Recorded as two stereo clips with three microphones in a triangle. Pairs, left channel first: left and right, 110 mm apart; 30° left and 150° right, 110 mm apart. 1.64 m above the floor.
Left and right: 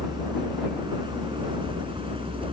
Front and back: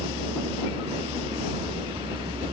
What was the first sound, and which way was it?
A vehicle, 135° right.